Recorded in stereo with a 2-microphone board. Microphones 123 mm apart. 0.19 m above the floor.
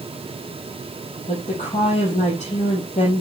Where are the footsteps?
I don't hear footsteps.